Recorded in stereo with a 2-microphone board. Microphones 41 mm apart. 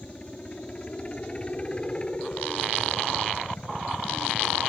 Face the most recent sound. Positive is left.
turn(degrees=25)  # may be behind; listen again after turning